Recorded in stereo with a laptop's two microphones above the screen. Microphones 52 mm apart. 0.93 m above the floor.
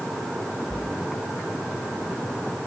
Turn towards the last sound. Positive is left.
turn(degrees=15)  # may be behind; listen again after turning